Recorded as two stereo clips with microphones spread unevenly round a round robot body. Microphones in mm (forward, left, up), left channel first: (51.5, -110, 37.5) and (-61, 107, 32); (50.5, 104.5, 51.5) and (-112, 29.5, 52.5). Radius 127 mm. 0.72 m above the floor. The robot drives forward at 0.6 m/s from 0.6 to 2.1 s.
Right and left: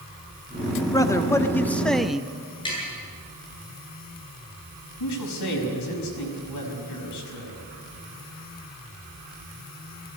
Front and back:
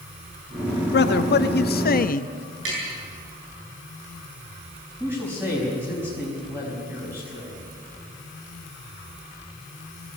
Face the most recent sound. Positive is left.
turn(degrees=-75)